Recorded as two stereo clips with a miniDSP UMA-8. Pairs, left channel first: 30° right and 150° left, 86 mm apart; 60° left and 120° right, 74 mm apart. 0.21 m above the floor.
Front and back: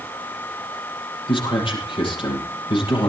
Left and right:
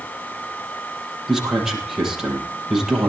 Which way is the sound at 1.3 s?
35° right.